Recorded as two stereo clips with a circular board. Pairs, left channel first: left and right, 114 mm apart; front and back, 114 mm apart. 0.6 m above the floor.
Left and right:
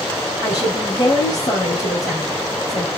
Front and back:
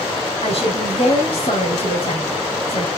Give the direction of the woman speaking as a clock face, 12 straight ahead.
11 o'clock.